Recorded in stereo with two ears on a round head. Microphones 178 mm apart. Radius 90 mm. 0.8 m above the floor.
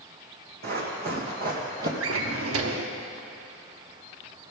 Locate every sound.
0.6 s running footsteps: 60° right (ahead or behind), 3 m; by 1.9 s 50° right (ahead or behind), 1.9 m
2.0 s a drawer: 75° right (ahead or behind), 0.9 m